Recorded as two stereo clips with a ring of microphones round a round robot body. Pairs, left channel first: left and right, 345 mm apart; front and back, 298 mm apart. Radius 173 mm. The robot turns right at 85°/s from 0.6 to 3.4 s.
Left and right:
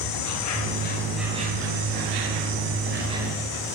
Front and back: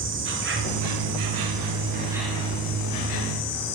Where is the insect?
130° left, 1.8 m; by 3.8 s 10° left, 1.8 m.